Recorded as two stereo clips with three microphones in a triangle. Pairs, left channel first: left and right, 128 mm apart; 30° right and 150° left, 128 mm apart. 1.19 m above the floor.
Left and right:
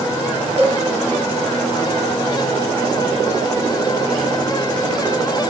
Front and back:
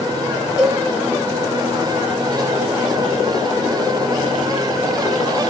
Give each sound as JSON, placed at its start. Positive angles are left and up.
{"t": 0.6, "sound": "a cowbell", "azimuth_deg": -85, "distance_m": 0.9}